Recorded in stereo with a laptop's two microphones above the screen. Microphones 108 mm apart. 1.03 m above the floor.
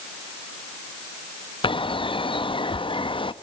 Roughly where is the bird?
Left.